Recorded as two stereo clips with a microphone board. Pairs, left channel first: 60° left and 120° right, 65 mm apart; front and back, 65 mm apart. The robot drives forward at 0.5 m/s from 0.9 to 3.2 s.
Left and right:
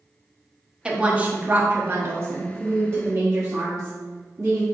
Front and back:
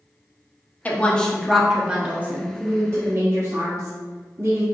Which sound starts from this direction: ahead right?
A woman speaking, at 0.8 s.